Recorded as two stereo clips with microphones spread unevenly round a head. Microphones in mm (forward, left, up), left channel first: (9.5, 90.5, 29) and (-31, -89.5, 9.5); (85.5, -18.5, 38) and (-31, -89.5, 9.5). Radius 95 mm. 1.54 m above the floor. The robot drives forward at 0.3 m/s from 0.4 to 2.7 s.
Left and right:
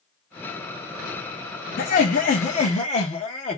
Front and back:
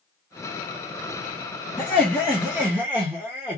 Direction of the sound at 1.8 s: 105° left.